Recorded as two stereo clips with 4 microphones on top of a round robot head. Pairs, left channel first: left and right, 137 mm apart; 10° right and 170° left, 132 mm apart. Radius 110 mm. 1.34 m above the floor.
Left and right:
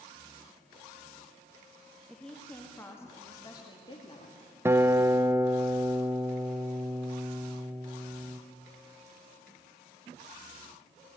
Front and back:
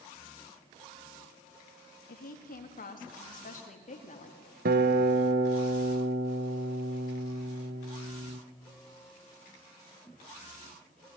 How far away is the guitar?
About 0.8 m.